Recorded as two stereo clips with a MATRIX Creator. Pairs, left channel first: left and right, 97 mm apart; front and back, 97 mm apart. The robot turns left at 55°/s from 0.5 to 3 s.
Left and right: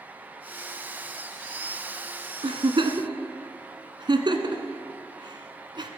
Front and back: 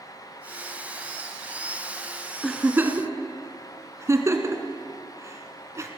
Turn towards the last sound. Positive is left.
turn(degrees=-120)